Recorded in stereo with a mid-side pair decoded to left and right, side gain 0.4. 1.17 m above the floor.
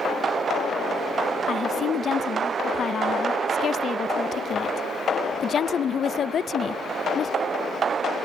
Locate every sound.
1.5 s a woman speaking: 50° left, 0.9 m